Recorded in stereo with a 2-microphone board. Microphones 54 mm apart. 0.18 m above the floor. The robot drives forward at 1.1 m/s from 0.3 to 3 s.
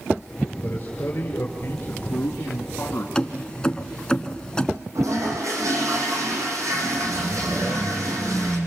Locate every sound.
0.6 s a man speaking: 35° left (ahead or behind), 3.5 m; by 3.0 s 50° left (ahead or behind), 2.5 m
3.1 s keys jangling: 15° left (ahead or behind), 1.4 m
5.0 s a toilet flushing: 80° right, 6 m